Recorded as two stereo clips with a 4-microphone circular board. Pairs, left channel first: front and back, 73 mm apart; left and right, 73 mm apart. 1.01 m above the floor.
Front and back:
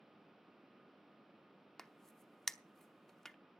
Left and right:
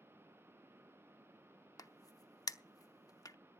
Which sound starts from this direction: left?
A crack, at 1.8 s.